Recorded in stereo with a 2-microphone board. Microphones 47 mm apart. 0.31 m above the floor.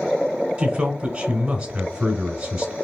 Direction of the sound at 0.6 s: 25° right (ahead or behind).